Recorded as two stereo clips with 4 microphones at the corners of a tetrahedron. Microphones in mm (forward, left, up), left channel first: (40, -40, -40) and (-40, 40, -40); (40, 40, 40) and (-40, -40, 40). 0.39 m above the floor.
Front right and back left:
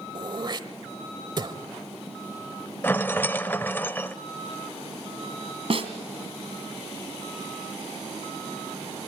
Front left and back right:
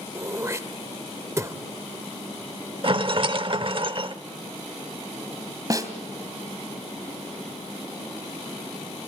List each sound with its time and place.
0.1 s throat clearing: 165° left, 1.2 m
2.8 s a rattle: 110° right, 0.7 m
5.7 s a snare drum: 165° left, 2 m